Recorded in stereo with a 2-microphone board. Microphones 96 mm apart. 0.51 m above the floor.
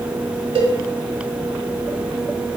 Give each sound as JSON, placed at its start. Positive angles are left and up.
{"t": 0.6, "sound": "a cowbell", "side_deg": -60, "distance_m": 0.7}